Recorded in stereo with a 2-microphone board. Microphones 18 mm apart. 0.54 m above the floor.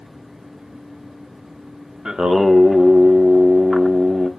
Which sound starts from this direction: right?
Singing, at 2.0 s.